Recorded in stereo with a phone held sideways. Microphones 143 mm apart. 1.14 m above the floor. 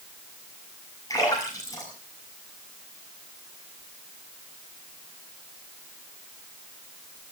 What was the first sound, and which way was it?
A splash, 25° left (ahead or behind).